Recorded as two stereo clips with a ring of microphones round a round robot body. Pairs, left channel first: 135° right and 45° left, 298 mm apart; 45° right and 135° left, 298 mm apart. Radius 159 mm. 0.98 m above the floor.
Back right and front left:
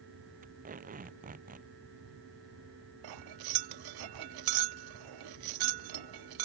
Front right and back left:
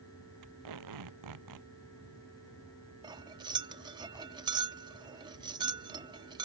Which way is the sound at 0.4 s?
110° left.